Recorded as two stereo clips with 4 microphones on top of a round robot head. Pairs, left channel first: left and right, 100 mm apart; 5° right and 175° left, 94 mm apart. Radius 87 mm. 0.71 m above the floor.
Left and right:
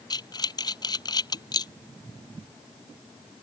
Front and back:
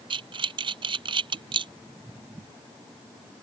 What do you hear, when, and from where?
0.1 s breathing: 140° left